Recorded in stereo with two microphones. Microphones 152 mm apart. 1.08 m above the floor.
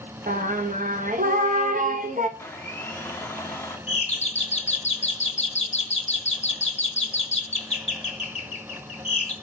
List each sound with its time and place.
0.3 s singing: 60° right (ahead or behind), 0.9 m
2.4 s a blender: 15° left (ahead or behind), 1.0 m
3.9 s a doorbell: 45° left (ahead or behind), 1.2 m